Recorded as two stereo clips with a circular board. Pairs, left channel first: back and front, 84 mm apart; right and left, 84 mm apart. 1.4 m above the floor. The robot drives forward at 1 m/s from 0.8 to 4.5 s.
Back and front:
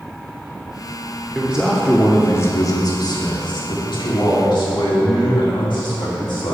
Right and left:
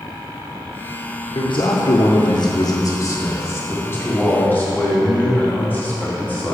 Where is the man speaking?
70° right, 1.2 m; by 6.5 s 160° right, 3 m.